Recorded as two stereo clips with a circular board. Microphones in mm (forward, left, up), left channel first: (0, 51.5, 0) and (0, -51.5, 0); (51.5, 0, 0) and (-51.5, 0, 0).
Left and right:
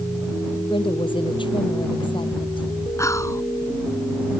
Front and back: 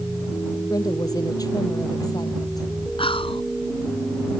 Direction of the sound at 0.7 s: 50° left.